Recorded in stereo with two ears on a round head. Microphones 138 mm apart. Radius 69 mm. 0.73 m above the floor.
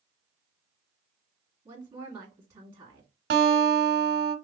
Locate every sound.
1.6 s a woman speaking: 15° right (ahead or behind), 1.7 m
3.3 s a guitar: 65° right (ahead or behind), 1.0 m